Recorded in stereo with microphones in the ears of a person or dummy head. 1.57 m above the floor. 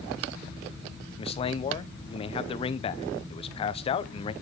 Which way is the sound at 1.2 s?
30° left (ahead or behind).